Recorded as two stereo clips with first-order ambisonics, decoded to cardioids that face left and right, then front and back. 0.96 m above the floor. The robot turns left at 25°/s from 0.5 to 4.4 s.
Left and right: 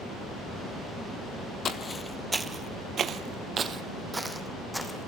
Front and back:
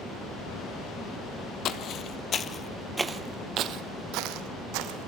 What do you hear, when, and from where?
1.6 s footsteps: 35° left, 1.3 m; by 5.1 s straight behind, 2.5 m